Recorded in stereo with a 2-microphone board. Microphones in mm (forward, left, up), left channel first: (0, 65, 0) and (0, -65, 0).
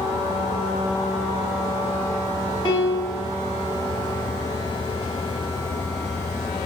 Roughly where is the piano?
Left.